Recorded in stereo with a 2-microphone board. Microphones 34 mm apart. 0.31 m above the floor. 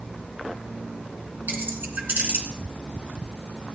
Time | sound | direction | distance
1.5 | keys jangling | 70° right (ahead or behind) | 3 m